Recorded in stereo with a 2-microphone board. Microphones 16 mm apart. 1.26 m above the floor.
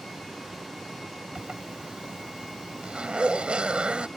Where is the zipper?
75° right (ahead or behind).